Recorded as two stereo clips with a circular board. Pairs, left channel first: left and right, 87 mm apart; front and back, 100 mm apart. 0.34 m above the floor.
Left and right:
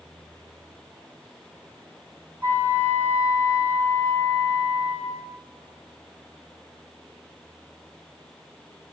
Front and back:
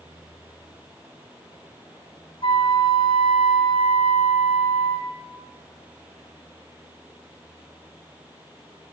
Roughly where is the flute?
Ahead.